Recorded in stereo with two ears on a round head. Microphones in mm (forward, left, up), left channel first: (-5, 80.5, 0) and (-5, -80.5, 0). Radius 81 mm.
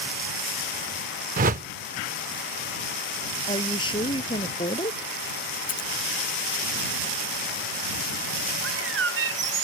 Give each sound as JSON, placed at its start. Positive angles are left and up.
{"t": 1.4, "sound": "a whoosh", "side_deg": -45}
{"t": 3.5, "sound": "a woman speaking", "side_deg": 30}
{"t": 5.7, "sound": "scissors", "side_deg": 50}
{"t": 8.6, "sound": "a bird", "side_deg": -70}